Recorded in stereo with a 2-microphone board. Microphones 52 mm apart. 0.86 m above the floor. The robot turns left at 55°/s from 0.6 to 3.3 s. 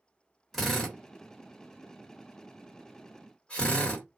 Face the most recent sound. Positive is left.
turn(degrees=20)  # may be behind; listen again after turning